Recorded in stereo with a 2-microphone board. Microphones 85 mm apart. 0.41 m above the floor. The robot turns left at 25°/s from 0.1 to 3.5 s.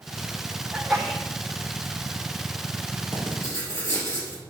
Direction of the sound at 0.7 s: Centre (ahead or behind).